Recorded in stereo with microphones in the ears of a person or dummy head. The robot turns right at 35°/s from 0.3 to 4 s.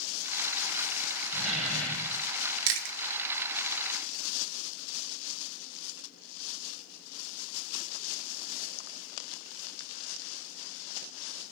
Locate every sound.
1.3 s a door slam: 15° right, 3 m; by 2.3 s 20° left, 3 m
2.7 s chewing: 65° right (ahead or behind), 1.1 m; by 3.0 s 60° right (ahead or behind), 1.1 m